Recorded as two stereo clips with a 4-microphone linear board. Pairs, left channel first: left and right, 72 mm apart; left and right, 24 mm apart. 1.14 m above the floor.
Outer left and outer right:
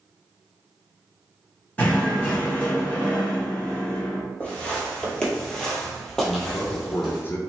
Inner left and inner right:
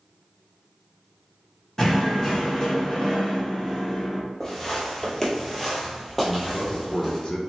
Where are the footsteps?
15° left (ahead or behind), 1.3 m; by 7.2 s centre (ahead or behind), 1.8 m.